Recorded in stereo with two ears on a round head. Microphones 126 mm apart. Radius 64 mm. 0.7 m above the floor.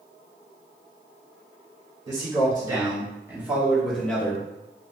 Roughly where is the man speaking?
Right.